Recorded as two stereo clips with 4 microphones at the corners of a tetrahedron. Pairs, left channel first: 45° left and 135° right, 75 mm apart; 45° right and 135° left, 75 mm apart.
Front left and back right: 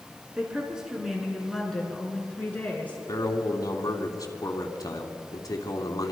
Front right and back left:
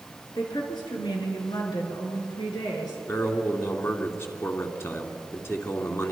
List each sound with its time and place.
0.3 s a woman speaking: 60° right, 5.5 m; by 3.0 s 25° right, 6 m
3.1 s a man speaking: 10° left, 3 m